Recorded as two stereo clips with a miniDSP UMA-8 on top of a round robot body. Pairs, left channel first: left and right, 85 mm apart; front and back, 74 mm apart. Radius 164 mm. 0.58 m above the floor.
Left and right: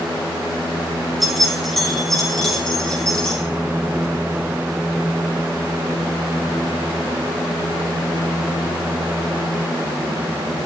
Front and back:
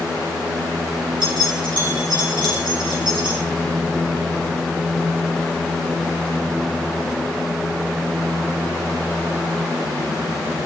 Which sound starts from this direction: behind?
Keys jangling, at 1.2 s.